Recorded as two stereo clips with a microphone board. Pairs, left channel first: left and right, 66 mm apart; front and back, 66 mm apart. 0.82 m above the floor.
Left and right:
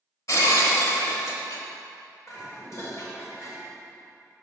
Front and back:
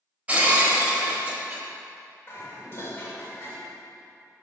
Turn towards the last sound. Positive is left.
turn(degrees=50)